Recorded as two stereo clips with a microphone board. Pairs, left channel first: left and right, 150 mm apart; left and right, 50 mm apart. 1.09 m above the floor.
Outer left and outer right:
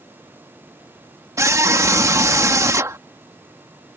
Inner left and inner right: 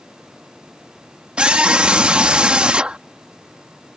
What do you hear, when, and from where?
1.4 s a scream: 20° right (ahead or behind)